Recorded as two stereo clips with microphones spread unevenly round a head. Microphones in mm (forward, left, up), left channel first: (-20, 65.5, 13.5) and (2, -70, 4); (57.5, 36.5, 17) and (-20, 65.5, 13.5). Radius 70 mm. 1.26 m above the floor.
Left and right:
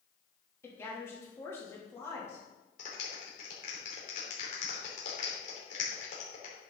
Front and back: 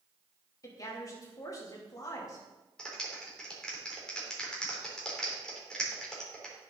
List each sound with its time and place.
0.6 s a woman speaking: 25° left, 2.5 m
2.8 s a clap: 60° left, 3 m